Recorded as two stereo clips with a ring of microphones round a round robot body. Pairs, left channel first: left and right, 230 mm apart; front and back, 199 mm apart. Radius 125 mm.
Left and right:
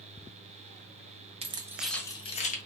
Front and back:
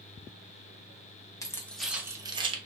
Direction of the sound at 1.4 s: 55° right.